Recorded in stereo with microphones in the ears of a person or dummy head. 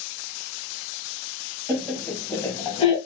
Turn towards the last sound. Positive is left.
turn(degrees=45)  # may be behind; listen again after turning